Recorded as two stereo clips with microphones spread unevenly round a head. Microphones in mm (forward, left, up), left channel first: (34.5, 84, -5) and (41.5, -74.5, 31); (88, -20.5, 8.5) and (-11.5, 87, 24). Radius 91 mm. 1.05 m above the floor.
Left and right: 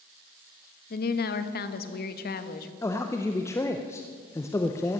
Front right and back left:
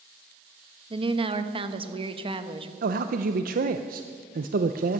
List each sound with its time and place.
0.9 s a woman speaking: 75° left, 1.1 m
2.8 s a man speaking: 155° left, 0.5 m